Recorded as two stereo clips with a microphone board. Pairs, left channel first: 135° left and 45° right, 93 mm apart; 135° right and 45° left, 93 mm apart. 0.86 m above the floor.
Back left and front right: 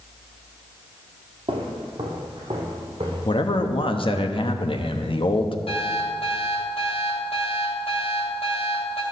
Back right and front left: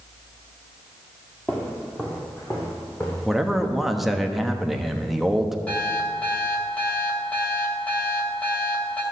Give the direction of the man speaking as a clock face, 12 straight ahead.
8 o'clock.